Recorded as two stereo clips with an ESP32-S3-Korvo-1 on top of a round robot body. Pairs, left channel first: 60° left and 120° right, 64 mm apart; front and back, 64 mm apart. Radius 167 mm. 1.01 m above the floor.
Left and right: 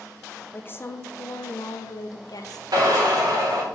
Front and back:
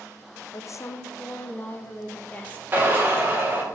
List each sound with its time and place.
0.5 s a woman speaking: 5° left, 0.9 m; by 2.6 s 70° left, 1.7 m
2.7 s a drill: 125° right, 2.5 m